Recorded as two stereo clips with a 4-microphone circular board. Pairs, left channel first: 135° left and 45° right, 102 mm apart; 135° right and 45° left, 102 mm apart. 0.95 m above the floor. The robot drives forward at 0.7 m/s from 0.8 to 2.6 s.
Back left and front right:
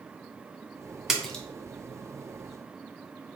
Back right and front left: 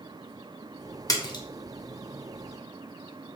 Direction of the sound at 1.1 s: 125° right.